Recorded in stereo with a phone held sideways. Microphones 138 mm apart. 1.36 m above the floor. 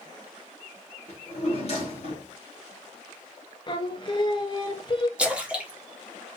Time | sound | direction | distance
1.1 | a drawer | 50° left (ahead or behind) | 1.7 m
3.7 | singing | 35° left (ahead or behind) | 0.7 m
5.2 | a splash | 10° right (ahead or behind) | 1.3 m